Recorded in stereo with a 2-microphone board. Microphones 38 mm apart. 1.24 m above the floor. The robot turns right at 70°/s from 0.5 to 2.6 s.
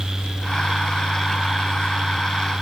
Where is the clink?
I don't hear a clink.